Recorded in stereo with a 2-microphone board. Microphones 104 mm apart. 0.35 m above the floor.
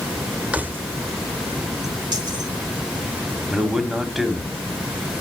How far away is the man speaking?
About 1.8 m.